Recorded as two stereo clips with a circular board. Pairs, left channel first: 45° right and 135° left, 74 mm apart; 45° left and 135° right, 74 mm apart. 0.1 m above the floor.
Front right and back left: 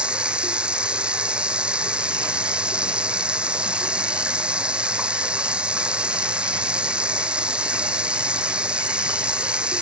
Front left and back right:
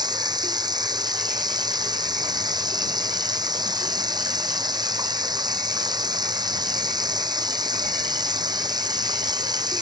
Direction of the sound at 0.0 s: 150° right.